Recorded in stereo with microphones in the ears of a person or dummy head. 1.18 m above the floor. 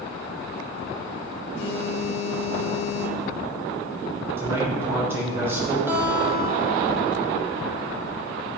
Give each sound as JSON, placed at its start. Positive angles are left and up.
{"t": 1.5, "sound": "a phone buzzing", "side_deg": 65, "distance_m": 1.9}
{"t": 4.4, "sound": "a man speaking", "side_deg": -15, "distance_m": 4.0}
{"t": 5.9, "sound": "a guitar", "side_deg": -15, "distance_m": 2.0}